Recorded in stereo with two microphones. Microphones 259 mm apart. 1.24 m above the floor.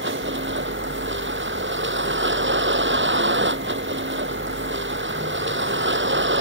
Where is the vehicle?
45° right (ahead or behind).